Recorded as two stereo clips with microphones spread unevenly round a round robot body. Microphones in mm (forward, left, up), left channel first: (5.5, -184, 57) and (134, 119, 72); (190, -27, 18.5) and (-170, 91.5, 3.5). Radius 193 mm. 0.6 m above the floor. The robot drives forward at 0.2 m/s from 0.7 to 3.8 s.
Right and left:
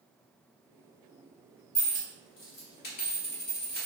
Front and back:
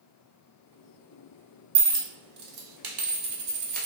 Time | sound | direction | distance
1.8 | a dropped coin | straight behind | 0.6 m